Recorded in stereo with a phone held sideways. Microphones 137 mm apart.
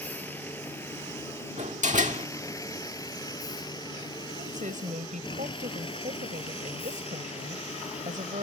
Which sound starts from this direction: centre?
A vehicle, at 0.0 s.